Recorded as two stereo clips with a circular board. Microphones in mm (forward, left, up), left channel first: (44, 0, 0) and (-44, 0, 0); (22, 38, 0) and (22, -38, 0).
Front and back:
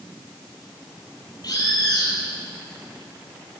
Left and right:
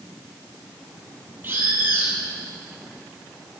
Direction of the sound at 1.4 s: 30° right.